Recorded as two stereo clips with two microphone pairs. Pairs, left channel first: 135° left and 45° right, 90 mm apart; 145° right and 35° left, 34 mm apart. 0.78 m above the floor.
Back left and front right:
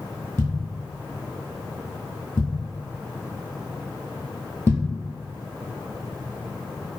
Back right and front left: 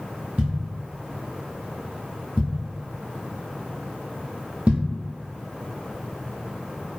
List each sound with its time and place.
0.4 s a thud: 75° left, 1.2 m